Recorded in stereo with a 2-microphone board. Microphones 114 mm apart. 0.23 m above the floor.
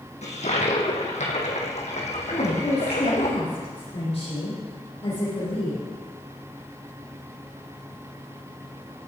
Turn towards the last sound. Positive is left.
turn(degrees=60)  # may be behind; listen again after turning